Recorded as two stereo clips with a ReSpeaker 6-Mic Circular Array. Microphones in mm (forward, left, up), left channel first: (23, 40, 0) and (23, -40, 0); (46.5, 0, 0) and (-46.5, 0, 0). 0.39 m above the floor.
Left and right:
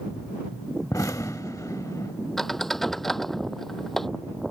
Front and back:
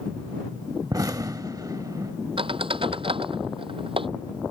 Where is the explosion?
135° left.